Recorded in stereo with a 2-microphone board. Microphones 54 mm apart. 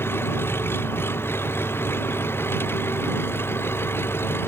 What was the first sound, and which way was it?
An engine running, 45° left (ahead or behind).